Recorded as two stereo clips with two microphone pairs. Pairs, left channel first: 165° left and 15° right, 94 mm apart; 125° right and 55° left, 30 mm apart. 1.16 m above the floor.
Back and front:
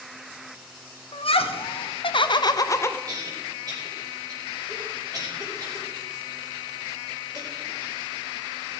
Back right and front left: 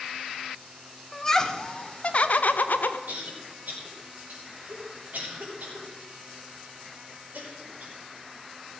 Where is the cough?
30° left, 5 m.